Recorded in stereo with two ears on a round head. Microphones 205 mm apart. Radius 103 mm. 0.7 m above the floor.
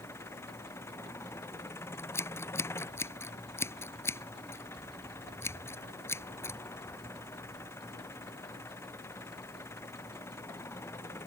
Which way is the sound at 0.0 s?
10° left (ahead or behind).